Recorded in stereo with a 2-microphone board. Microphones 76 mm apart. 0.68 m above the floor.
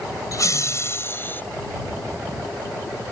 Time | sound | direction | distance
0.3 | laughter | 50° left (ahead or behind) | ?